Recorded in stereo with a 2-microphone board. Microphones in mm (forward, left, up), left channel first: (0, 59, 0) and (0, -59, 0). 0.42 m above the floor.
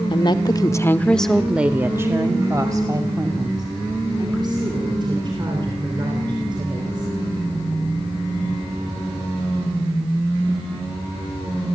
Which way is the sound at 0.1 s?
45° left (ahead or behind).